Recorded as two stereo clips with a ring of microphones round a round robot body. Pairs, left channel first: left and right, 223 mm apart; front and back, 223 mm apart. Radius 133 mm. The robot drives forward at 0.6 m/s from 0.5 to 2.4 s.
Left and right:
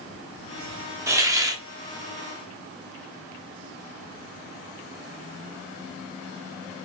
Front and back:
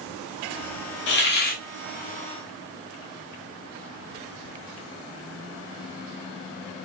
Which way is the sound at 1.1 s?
15° right.